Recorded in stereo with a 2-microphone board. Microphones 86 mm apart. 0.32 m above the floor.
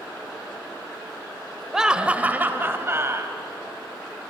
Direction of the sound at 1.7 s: 5° right (ahead or behind).